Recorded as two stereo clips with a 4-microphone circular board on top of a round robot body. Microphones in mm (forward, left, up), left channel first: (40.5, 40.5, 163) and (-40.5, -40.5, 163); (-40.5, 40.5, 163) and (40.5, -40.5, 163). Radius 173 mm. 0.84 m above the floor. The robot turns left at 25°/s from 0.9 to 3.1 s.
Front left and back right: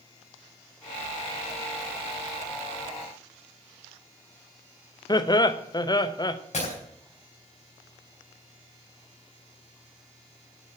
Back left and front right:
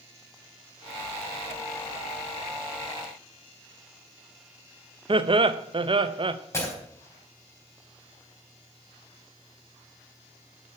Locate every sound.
5.1 s laughter: 5° right, 1.0 m
6.5 s breaking glass: 70° left, 4 m